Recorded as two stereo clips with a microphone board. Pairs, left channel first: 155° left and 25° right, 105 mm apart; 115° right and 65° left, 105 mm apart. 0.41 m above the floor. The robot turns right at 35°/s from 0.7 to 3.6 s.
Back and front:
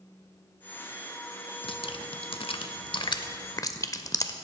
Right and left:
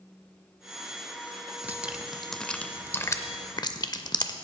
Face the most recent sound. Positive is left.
turn(degrees=-155)